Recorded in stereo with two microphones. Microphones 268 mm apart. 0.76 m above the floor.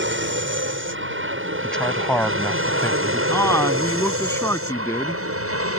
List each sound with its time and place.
0.0 s an aircraft: 45° right (ahead or behind); by 5.8 s 55° right (ahead or behind)
1.6 s a man speaking: 5° left (ahead or behind)
3.3 s a man speaking: 10° left (ahead or behind)